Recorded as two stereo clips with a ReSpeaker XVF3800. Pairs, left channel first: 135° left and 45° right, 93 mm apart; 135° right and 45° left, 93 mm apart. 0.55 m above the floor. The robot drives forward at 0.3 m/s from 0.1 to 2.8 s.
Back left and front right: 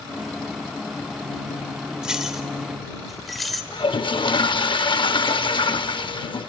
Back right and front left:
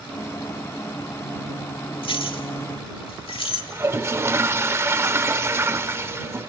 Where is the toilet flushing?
105° left, 0.6 m.